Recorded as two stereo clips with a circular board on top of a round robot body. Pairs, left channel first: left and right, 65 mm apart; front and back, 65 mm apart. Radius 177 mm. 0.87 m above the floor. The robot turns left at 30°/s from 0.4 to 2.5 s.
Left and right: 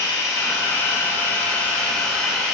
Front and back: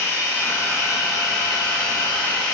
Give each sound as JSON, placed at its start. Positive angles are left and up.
{"t": 0.0, "sound": "running water", "azimuth_deg": 60, "distance_m": 3.0}